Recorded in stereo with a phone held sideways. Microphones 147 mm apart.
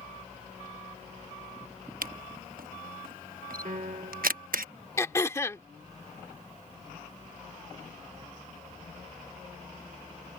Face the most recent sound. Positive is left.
turn(degrees=20)  # may be behind; listen again after turning